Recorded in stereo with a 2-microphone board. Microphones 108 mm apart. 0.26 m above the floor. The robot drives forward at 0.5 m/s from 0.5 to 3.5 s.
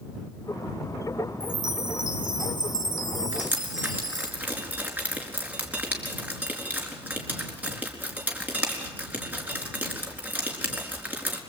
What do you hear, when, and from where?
1.4 s a chime: 45° right (ahead or behind), 1.5 m; by 4.3 s 35° right (ahead or behind), 1.7 m
3.3 s dripping: 15° right (ahead or behind), 4 m